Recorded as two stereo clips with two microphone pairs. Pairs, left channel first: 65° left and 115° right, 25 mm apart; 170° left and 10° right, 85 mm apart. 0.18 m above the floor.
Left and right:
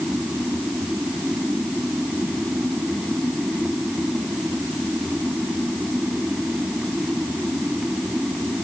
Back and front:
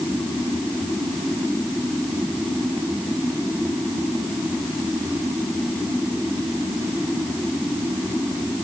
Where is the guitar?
I don't hear a guitar.